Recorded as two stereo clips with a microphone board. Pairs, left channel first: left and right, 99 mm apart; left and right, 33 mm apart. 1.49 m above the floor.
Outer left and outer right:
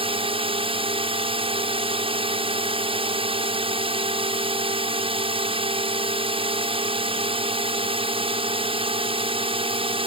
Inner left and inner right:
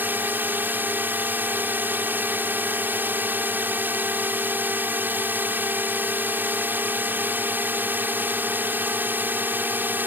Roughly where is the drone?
Right.